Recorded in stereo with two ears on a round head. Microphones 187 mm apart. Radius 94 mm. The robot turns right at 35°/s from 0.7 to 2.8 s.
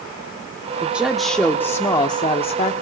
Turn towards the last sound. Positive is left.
turn(degrees=55)